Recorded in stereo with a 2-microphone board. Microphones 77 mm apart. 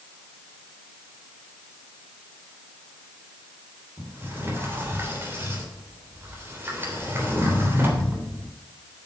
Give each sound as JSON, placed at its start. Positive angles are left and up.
{"t": 4.0, "sound": "a sliding door", "side_deg": -30, "distance_m": 3.0}